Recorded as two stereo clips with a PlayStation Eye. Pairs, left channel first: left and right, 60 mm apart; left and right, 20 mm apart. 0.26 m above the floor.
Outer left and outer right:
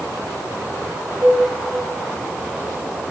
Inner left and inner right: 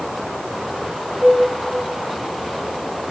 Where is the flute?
65° right (ahead or behind), 4 m.